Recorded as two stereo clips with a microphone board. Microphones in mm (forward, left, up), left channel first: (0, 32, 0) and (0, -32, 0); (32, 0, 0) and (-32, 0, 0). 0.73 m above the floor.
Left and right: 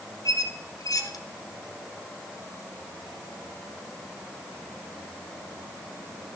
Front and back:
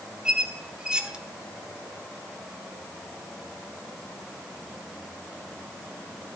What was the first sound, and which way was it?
A squeak, 105° left.